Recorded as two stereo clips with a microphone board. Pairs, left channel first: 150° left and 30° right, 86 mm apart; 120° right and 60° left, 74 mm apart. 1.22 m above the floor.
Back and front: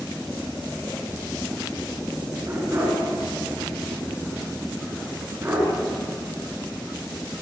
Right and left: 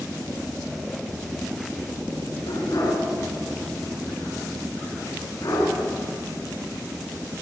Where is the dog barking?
90° right, 7.5 m.